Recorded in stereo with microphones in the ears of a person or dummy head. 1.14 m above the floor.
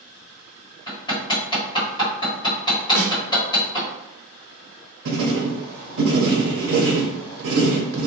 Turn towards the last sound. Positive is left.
turn(degrees=-60)  # may be behind; listen again after turning